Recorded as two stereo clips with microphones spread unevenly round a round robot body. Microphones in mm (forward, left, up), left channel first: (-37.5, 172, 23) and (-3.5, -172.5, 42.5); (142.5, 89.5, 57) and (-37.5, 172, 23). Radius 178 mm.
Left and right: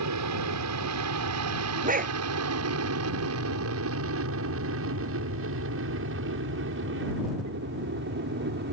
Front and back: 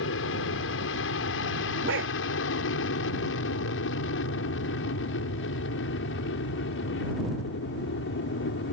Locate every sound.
0.0 s an aircraft: 45° right; by 8.7 s 25° right
1.8 s a dog barking: 150° right